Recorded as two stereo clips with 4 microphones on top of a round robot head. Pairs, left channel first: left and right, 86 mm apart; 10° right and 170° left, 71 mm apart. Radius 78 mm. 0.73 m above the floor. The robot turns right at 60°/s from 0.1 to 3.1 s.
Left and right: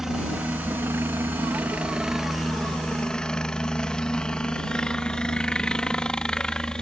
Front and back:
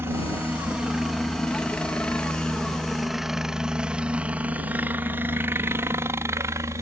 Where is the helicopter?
170° right; by 6.8 s 165° left.